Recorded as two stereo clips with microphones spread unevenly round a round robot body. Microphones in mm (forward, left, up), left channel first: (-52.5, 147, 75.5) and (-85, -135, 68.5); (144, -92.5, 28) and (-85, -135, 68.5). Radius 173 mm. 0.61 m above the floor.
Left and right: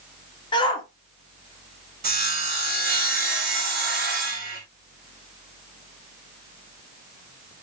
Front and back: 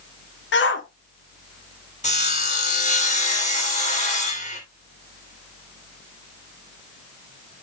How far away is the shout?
About 1.6 m.